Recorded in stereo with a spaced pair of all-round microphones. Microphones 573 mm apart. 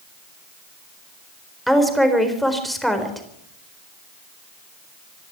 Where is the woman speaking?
Centre (ahead or behind), 4 m.